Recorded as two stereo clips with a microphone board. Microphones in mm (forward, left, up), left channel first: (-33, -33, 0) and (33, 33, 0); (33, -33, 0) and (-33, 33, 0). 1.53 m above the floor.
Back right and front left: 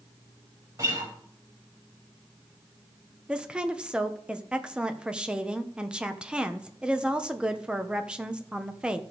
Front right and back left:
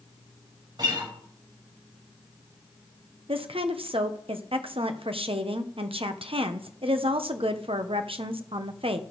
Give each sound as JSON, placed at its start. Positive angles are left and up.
{"t": 0.8, "sound": "a guitar", "azimuth_deg": 100, "distance_m": 4.0}
{"t": 3.3, "sound": "a woman speaking", "azimuth_deg": 125, "distance_m": 1.0}